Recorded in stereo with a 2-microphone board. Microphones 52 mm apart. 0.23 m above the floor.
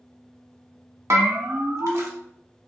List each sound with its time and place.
1.1 s a bell: 60° right (ahead or behind), 0.9 m